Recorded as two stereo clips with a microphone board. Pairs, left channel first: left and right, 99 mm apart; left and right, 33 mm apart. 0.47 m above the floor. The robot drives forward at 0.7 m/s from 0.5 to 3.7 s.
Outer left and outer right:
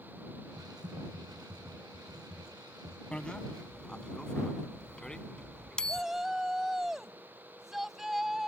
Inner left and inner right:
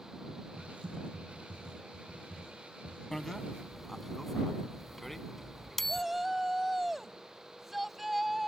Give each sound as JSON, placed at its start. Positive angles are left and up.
{"t": 0.6, "sound": "typing on a keyboard", "side_deg": -55}
{"t": 3.1, "sound": "a bicycle bell", "side_deg": 10}
{"t": 5.9, "sound": "a shout", "side_deg": -5}